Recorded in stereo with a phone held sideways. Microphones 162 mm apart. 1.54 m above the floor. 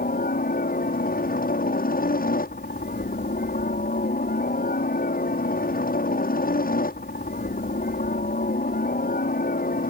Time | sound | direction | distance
0.0 | a helicopter | 65° left (ahead or behind) | ?